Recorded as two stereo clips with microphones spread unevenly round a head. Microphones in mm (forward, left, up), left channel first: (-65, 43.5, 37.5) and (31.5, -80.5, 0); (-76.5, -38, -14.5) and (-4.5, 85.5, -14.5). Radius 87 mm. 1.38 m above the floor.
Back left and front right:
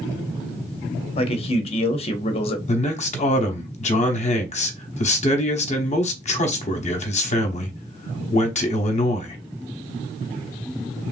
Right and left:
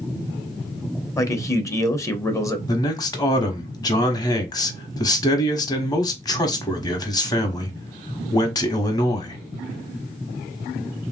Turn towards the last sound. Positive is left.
turn(degrees=180)